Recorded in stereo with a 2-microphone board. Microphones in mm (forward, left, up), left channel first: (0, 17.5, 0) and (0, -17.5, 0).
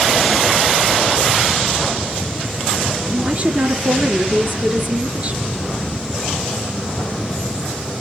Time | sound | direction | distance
3.1 | a woman speaking | 40° right (ahead or behind) | 4 m